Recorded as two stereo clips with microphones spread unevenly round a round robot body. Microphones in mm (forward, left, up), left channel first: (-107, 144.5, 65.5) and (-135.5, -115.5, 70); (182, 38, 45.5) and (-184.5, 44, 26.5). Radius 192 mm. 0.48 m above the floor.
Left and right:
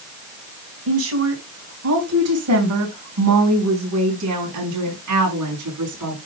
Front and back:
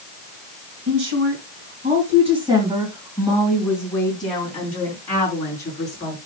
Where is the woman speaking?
125° right, 2.5 m; by 6.2 s 80° right, 5 m.